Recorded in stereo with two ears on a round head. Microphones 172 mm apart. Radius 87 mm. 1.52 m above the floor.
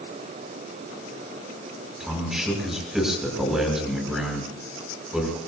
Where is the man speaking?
5° right (ahead or behind), 6 m.